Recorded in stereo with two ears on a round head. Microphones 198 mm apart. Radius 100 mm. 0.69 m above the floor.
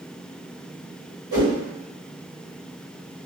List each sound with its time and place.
1.3 s a whoosh: 55° right (ahead or behind), 1.6 m